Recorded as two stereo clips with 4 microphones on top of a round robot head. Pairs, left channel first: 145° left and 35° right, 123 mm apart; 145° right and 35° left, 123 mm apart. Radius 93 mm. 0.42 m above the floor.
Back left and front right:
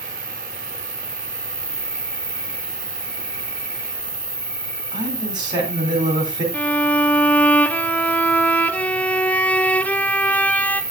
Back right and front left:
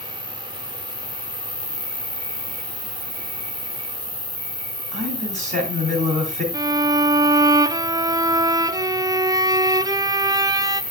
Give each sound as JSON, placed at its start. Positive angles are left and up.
{"t": 0.0, "sound": "an insect", "azimuth_deg": 45, "distance_m": 2.5}
{"t": 4.9, "sound": "a man speaking", "azimuth_deg": 20, "distance_m": 3.0}
{"t": 6.5, "sound": "a violin", "azimuth_deg": 75, "distance_m": 0.5}